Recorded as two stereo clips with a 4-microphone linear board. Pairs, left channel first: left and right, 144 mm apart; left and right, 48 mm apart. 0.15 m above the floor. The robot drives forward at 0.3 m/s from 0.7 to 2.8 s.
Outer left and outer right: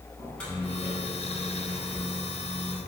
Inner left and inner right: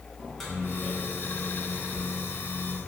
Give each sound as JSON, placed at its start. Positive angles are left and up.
{"t": 0.2, "sound": "a microwave", "side_deg": 5, "distance_m": 0.9}